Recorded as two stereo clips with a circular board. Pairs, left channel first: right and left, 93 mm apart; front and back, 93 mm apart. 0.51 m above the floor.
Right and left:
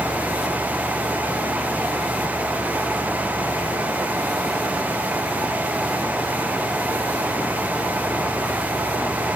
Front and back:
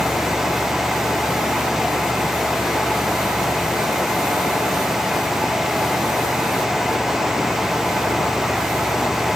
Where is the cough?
No cough in this recording.